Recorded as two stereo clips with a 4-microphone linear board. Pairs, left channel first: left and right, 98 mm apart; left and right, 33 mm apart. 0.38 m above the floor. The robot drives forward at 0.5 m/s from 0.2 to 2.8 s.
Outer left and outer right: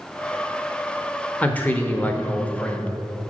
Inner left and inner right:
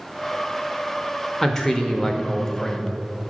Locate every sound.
1.4 s a man speaking: 15° left (ahead or behind), 0.9 m